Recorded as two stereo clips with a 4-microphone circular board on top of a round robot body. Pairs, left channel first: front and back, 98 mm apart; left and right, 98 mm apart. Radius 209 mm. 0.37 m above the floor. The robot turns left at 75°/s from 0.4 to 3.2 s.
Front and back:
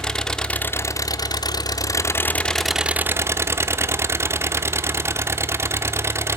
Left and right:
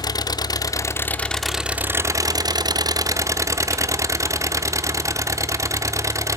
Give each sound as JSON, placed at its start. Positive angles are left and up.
{"t": 0.0, "sound": "an engine running", "azimuth_deg": 80, "distance_m": 0.8}